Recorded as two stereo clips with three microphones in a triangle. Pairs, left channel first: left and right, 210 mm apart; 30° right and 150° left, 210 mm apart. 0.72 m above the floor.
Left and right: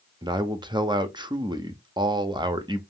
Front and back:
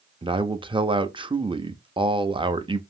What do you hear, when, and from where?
0.2 s a man speaking: 150° right, 0.6 m